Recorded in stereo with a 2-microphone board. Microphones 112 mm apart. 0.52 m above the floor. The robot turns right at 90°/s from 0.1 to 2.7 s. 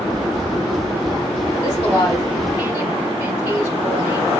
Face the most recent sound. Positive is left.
turn(degrees=-25)  # may be behind; listen again after turning